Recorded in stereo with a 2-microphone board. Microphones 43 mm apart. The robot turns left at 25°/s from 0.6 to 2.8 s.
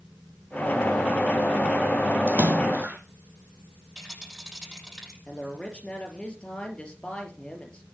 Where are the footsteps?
I don't hear footsteps.